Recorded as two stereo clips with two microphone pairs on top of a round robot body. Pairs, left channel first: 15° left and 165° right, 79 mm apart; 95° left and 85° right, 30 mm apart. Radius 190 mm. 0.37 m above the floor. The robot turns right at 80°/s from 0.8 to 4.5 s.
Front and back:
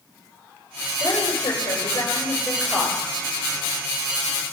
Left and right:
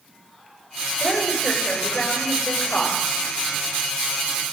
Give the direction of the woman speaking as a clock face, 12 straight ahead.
1 o'clock.